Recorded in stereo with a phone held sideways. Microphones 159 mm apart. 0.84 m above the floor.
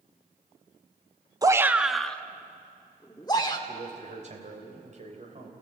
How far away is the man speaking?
About 3.5 m.